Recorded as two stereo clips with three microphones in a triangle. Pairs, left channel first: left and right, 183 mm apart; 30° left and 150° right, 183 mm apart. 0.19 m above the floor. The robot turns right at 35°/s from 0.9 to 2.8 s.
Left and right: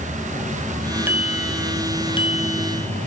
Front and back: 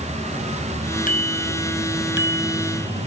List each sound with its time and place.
1.1 s a bicycle bell: 10° right; by 3.1 s 50° left